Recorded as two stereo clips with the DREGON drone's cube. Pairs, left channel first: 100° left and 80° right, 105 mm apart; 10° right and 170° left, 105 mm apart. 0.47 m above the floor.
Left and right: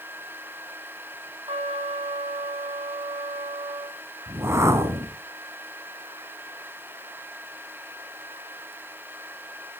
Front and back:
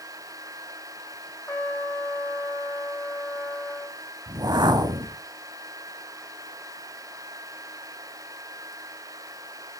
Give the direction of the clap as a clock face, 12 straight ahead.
I don't hear a clap.